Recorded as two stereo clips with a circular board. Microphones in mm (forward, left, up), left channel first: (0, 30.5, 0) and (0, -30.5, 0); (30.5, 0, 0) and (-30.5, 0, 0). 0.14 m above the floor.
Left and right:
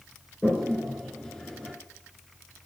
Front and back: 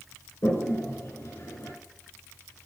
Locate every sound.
0.4 s a toilet flushing: 15° left, 1.9 m